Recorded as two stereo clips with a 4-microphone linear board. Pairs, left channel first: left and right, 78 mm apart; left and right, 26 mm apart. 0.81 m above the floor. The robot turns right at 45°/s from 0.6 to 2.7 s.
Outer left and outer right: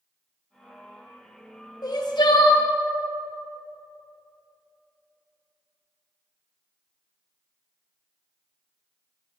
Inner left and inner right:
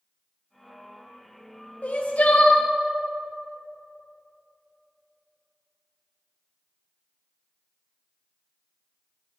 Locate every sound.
1.8 s crying: 60° left, 0.6 m; by 2.6 s 100° left, 0.6 m